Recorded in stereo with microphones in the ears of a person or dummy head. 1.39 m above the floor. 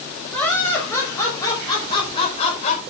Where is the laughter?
10° left (ahead or behind), 5.5 m; by 2.8 s 40° left (ahead or behind), 4.5 m.